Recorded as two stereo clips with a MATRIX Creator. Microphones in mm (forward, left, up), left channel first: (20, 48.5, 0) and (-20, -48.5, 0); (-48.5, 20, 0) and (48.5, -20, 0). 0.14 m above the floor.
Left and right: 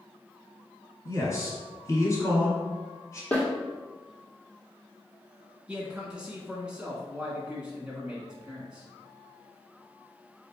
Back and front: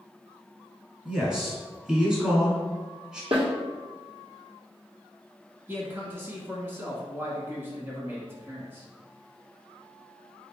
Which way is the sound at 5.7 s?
45° right.